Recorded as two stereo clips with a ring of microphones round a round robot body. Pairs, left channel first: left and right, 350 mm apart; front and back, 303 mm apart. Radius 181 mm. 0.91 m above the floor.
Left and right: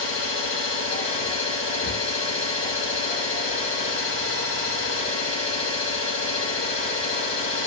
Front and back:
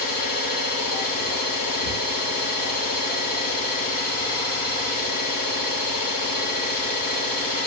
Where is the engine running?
15° left, 2.5 m.